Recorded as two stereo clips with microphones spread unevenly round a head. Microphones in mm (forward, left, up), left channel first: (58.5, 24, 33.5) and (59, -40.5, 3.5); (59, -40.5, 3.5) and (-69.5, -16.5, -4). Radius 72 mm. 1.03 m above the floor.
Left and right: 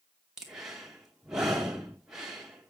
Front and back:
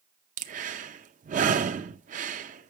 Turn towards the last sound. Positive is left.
turn(degrees=-170)